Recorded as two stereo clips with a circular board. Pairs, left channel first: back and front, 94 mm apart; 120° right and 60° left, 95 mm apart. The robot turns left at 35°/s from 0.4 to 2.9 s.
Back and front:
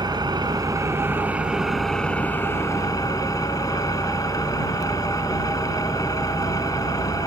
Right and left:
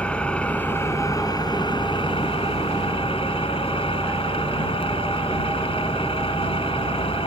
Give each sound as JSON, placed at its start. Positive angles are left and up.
{"t": 0.0, "sound": "an engine running", "azimuth_deg": -40}